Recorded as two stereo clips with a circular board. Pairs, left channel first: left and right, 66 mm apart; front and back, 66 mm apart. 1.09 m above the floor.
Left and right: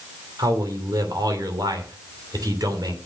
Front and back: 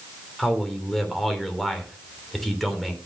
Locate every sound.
0.4 s a man speaking: 90° right, 3 m